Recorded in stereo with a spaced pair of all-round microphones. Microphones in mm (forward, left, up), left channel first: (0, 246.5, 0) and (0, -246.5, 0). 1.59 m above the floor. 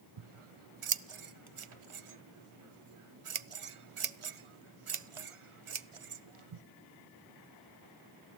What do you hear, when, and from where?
0.2 s scissors: 80° right, 0.6 m